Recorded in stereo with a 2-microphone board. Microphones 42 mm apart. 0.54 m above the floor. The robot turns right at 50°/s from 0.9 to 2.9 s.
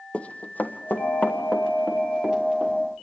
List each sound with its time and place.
0.1 s running footsteps: 30° left (ahead or behind), 1.1 m; by 2.7 s 30° right (ahead or behind), 4.5 m